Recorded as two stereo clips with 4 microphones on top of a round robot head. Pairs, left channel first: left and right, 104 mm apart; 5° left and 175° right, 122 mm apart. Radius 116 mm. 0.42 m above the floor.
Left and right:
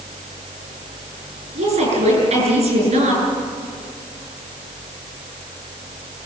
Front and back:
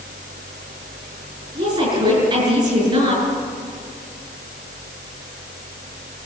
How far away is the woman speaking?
About 7.5 m.